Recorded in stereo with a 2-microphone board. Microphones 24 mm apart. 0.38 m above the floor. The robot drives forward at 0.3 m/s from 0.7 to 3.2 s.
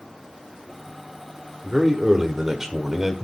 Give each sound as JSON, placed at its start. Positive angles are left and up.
{"t": 1.6, "sound": "a man speaking", "side_deg": -20, "distance_m": 1.1}